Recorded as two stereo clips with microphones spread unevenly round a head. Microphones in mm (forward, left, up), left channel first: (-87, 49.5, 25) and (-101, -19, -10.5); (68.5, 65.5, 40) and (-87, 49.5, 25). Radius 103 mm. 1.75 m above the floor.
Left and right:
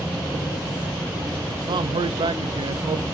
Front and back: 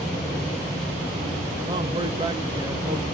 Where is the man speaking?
105° right, 0.7 m.